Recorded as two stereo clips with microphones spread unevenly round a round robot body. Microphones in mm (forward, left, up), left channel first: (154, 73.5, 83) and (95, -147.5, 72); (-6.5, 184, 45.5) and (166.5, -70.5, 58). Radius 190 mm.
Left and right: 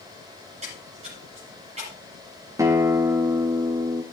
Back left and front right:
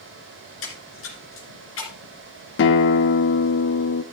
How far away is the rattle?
No rattle in this recording.